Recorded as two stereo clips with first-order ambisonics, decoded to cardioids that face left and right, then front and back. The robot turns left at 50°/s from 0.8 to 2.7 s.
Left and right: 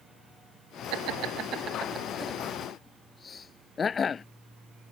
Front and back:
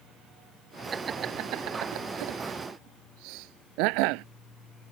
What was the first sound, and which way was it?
Laughter, 110° right.